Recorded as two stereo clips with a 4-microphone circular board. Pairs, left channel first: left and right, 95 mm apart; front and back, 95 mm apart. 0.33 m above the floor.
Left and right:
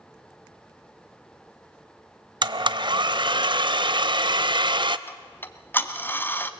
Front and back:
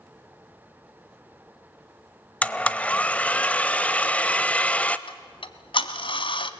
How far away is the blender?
About 0.7 m.